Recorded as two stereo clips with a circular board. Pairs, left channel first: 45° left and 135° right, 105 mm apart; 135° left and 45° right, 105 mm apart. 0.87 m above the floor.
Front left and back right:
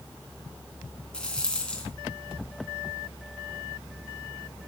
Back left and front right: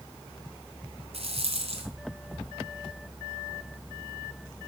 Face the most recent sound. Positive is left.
turn(degrees=-35)